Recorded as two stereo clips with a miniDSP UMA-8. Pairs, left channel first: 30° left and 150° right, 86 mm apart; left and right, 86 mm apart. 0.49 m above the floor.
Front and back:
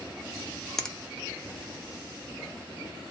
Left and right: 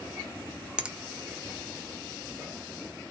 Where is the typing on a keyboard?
No typing on a keyboard in this recording.